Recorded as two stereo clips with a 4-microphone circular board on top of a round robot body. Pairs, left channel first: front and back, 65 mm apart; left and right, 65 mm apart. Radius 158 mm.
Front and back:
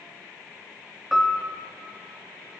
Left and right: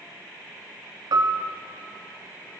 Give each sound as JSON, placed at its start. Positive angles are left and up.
{"t": 1.1, "sound": "a piano", "azimuth_deg": -90, "distance_m": 0.8}